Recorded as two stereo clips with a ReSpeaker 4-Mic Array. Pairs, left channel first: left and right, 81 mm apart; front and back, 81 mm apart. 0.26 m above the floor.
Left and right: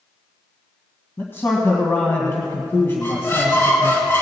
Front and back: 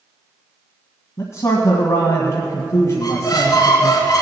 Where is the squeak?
30° left, 2.5 m.